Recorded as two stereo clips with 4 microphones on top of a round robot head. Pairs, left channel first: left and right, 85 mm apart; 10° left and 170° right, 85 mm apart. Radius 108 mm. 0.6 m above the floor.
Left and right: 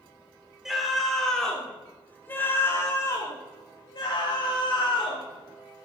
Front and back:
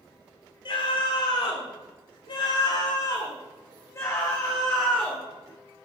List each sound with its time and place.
0.7 s a scream: 5° right, 4.5 m; by 5.2 s 85° left, 4.5 m